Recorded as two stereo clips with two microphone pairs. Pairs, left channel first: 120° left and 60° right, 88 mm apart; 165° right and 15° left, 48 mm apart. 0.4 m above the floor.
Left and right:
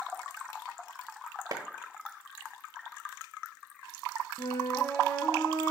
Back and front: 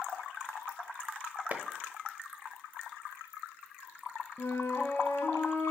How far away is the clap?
About 1.0 m.